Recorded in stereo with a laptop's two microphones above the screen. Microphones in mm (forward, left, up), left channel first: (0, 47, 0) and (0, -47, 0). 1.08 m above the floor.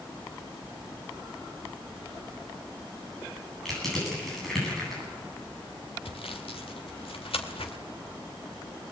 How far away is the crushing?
About 9.5 m.